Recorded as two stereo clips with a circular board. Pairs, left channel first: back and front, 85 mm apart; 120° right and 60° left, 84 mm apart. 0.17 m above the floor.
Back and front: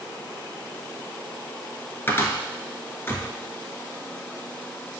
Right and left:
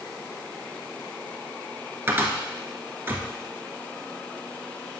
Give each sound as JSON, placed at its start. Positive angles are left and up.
{"t": 2.1, "sound": "a cupboard door", "azimuth_deg": 120, "distance_m": 1.0}